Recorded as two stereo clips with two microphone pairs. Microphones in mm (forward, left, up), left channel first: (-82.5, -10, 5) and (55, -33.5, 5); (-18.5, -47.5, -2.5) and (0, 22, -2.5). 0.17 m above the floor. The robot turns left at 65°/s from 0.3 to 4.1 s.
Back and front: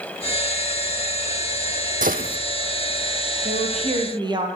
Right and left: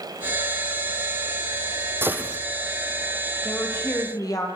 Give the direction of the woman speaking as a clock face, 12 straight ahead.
1 o'clock.